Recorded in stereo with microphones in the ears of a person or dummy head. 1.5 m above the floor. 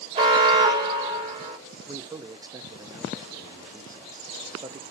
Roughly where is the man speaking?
Centre.